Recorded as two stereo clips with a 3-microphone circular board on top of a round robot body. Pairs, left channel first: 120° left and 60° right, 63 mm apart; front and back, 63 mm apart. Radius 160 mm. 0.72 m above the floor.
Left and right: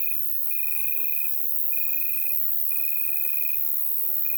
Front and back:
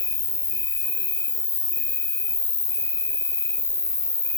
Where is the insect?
10° left, 0.9 m.